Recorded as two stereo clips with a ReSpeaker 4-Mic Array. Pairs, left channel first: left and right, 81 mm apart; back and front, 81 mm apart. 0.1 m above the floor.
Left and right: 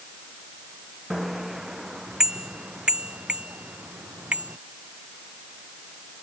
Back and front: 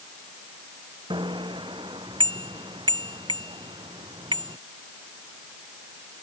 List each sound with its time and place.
1.1 s a bicycle bell: 5° right; by 4.6 s 20° right